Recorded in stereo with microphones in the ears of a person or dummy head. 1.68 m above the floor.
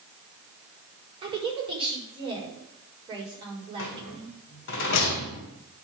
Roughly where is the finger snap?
I don't hear a finger snap.